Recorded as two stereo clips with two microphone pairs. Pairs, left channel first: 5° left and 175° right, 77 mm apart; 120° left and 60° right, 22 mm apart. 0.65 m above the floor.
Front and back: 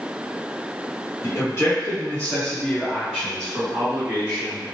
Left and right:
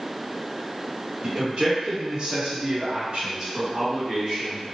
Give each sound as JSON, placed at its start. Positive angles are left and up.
{"t": 1.2, "sound": "a man speaking", "azimuth_deg": -25, "distance_m": 1.4}